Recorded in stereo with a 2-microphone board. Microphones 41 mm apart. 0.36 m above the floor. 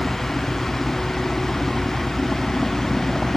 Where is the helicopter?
20° left (ahead or behind); by 3.4 s 15° left (ahead or behind).